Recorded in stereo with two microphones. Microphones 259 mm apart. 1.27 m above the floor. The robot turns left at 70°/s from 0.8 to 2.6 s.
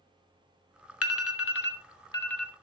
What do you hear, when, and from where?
1.0 s an alarm: 65° left (ahead or behind), 0.9 m; by 2.5 s 10° right (ahead or behind), 0.9 m